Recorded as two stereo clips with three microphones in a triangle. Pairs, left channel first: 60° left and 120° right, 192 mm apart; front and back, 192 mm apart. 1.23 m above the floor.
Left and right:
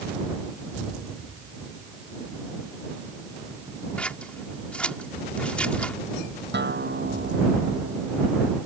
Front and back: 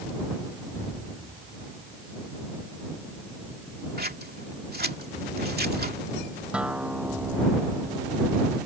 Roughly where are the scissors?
Behind left.